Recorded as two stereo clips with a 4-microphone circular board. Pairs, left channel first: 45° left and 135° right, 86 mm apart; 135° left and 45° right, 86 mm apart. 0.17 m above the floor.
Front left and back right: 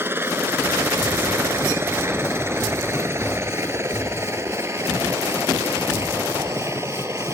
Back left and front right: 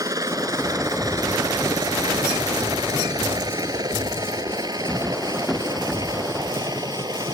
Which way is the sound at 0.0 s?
75° right.